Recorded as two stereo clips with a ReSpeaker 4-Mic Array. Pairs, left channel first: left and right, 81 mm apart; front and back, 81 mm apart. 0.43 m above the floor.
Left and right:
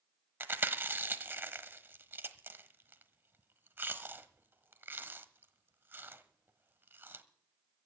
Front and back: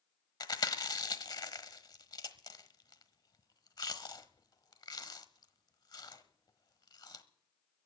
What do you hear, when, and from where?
0.4 s chewing: 30° right, 1.1 m